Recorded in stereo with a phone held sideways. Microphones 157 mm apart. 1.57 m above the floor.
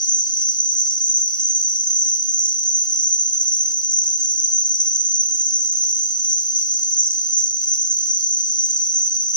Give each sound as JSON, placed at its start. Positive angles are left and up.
{"t": 0.0, "sound": "an insect", "side_deg": 55, "distance_m": 0.8}